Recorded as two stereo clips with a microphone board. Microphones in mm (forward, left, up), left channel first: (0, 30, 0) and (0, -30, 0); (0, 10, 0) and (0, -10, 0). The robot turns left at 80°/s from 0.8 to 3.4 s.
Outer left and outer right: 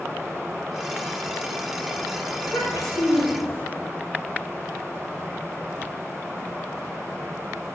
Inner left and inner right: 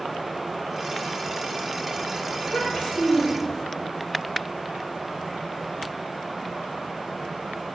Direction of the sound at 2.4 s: 110° left.